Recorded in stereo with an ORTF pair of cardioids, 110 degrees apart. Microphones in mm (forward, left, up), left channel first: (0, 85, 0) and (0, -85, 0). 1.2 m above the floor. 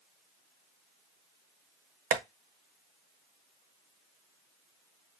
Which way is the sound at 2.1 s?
55° right.